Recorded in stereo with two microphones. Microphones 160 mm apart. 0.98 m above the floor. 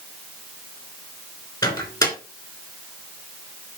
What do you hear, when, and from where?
1.6 s a microwave: 25° left (ahead or behind), 3 m